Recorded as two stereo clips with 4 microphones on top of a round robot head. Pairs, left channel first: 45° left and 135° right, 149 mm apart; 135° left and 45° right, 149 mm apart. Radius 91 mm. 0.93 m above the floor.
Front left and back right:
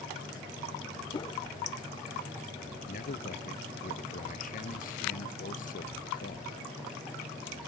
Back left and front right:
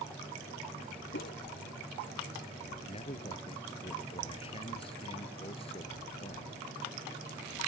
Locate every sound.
1.1 s a whoosh: 105° left
2.9 s a man speaking: 80° left